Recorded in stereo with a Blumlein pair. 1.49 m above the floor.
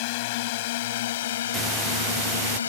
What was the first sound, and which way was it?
A drone, 50° left.